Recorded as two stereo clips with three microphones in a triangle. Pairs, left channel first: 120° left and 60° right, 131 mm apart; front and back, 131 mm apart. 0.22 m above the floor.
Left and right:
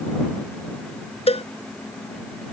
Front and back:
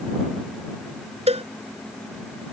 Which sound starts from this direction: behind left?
A cowbell, at 1.3 s.